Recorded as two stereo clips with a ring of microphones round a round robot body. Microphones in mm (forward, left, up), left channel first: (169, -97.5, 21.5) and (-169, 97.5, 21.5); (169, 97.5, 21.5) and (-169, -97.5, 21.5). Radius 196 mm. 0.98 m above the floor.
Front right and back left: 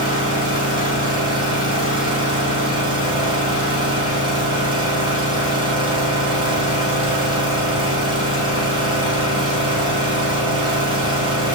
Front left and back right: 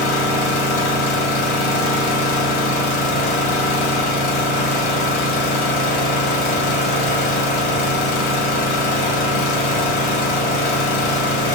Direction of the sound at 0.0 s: 70° left.